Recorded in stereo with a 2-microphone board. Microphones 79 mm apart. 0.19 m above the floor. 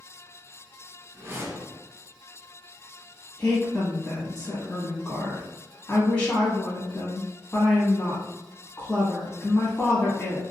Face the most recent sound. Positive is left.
turn(degrees=20)  # may be behind; listen again after turning